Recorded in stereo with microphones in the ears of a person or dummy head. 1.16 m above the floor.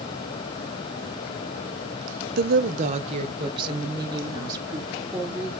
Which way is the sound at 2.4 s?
50° right (ahead or behind).